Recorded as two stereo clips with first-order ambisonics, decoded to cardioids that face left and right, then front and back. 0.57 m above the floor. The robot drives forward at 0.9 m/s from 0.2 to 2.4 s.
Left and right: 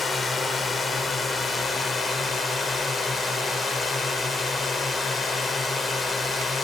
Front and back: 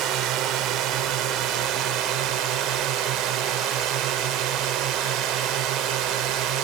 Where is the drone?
160° left; by 6.7 s 165° left.